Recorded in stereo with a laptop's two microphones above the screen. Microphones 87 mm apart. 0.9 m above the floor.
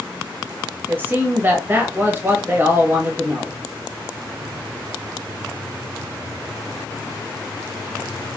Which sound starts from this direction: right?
A man speaking, at 0.9 s.